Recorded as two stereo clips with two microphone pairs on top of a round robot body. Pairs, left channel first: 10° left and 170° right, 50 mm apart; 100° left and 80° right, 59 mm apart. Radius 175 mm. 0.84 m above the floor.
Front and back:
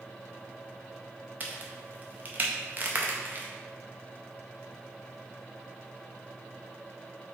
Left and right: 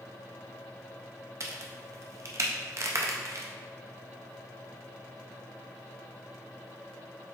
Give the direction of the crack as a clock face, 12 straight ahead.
4 o'clock.